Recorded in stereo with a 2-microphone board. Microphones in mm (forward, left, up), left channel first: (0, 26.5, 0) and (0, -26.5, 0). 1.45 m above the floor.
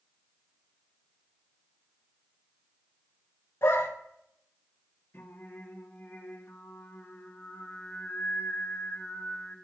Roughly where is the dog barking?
Left.